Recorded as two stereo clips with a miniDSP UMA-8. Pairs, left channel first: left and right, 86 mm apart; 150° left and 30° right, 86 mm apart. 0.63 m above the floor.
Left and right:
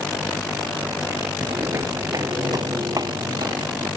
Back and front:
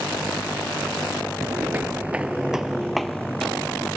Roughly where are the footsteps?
Ahead right.